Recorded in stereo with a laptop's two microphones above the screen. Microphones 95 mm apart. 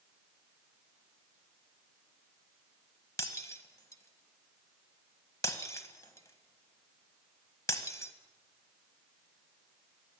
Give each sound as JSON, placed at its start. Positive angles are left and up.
{"t": 3.2, "sound": "breaking glass", "side_deg": 30, "distance_m": 1.5}